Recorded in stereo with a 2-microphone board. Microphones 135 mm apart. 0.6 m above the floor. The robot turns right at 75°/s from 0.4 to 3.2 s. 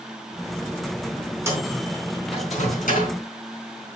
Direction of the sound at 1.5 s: 20° right (ahead or behind).